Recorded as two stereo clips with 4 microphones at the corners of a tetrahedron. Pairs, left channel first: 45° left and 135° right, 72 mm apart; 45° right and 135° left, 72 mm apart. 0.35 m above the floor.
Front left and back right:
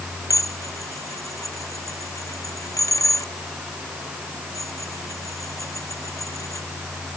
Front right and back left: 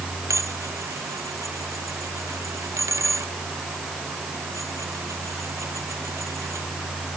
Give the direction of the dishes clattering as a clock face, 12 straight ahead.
9 o'clock.